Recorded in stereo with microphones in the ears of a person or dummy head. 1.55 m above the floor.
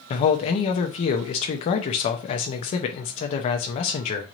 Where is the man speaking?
25° left (ahead or behind), 0.5 m.